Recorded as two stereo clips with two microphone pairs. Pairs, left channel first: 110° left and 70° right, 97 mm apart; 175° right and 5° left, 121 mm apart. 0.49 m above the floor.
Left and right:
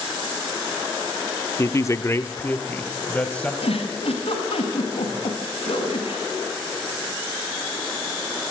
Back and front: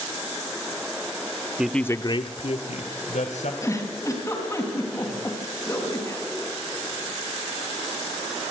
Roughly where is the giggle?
Behind left.